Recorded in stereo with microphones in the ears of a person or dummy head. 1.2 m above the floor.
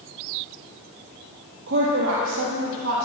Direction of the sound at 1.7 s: 60° right (ahead or behind).